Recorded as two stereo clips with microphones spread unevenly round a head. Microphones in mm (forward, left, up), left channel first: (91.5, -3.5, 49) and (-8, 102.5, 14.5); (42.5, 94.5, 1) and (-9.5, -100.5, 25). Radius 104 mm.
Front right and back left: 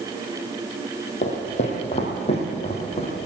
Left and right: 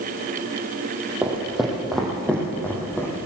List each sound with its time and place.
1.2 s footsteps: 25° right, 3 m; by 3.1 s 5° right, 4 m